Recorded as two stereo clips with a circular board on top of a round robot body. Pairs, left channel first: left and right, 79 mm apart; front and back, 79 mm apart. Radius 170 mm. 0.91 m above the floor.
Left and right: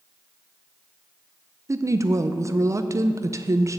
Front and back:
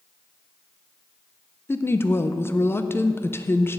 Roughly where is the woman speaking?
Ahead right.